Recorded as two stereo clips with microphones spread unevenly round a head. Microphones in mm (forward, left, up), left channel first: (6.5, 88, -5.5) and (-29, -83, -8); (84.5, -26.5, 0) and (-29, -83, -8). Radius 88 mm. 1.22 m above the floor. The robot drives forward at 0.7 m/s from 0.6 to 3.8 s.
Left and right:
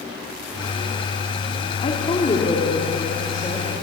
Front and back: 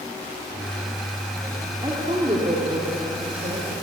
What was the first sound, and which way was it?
A woman speaking, 140° left.